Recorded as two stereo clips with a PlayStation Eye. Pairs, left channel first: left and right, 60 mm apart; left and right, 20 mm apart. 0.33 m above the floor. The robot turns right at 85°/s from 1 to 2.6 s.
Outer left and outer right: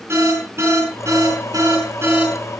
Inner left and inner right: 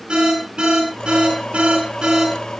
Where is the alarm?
45° right (ahead or behind), 10 m; by 2.5 s 5° right (ahead or behind), 10 m.